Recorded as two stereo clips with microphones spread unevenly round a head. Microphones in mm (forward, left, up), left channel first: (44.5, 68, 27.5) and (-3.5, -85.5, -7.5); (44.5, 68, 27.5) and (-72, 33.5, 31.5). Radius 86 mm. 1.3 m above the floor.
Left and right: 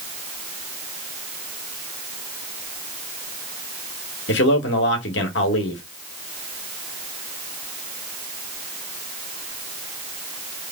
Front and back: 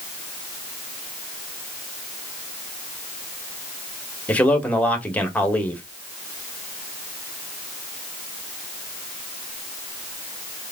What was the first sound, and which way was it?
A man speaking, 95° left.